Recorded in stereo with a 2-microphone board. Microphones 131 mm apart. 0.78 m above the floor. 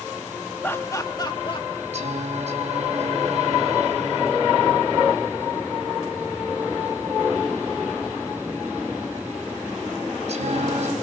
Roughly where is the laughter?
Centre.